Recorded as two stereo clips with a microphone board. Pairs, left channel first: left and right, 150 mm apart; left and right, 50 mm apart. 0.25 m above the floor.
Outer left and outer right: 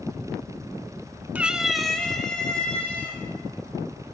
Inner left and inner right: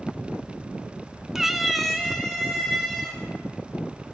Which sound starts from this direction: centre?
A cat meowing, at 1.4 s.